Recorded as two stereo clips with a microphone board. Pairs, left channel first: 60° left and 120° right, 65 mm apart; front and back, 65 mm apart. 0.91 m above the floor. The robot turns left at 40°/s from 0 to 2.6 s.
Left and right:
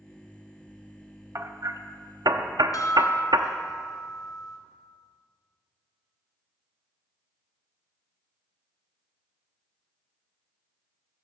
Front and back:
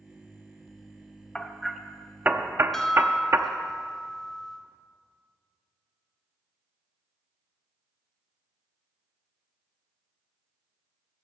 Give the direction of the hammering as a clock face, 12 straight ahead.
3 o'clock.